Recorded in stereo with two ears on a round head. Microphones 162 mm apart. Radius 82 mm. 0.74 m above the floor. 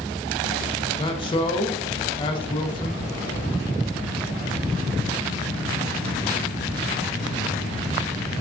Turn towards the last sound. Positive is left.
turn(degrees=30)  # may be behind; listen again after turning